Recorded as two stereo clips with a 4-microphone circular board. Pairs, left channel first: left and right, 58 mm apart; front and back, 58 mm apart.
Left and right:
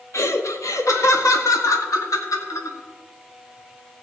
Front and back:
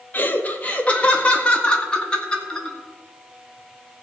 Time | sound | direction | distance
0.1 | laughter | 55° left | 1.4 m